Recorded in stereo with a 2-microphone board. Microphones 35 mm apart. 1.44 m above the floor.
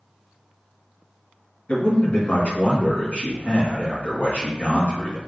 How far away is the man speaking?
About 1.6 m.